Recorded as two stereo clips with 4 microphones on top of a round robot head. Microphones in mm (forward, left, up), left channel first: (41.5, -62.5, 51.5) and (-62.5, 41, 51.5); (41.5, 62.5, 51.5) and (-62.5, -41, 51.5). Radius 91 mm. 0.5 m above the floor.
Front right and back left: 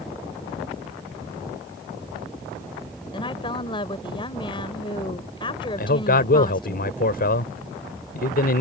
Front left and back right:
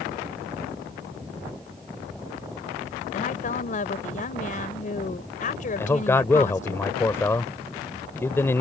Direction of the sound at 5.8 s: 30° right.